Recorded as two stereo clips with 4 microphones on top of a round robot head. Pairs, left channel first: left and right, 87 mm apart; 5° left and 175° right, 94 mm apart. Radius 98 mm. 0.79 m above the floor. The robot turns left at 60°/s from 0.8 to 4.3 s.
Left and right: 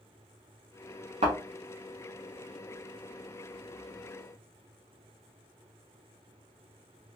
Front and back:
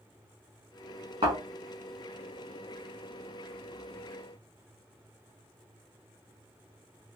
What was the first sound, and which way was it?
A thud, 120° right.